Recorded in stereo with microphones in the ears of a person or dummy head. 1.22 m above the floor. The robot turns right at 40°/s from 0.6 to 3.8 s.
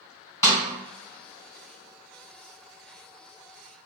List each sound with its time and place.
0.4 s a snare drum: 15° left (ahead or behind), 1.5 m